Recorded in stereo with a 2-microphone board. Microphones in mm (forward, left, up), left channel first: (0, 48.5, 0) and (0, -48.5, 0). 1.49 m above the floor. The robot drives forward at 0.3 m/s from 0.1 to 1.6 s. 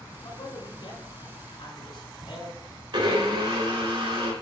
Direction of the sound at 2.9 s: 60° right (ahead or behind).